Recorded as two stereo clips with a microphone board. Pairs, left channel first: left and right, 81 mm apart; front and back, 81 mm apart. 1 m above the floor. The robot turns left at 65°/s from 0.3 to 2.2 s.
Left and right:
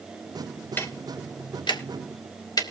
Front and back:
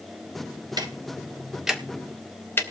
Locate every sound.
0.8 s ticking: 155° left, 1.3 m; by 2.6 s 60° left, 1.3 m